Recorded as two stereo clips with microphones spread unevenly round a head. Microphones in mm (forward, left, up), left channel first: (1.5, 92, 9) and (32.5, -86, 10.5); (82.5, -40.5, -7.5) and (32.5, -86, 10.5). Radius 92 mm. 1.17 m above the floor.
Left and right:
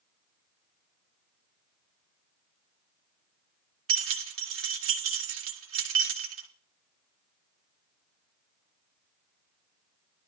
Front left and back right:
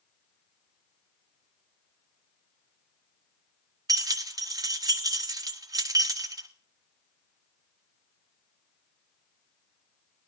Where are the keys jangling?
105° right, 1.5 m.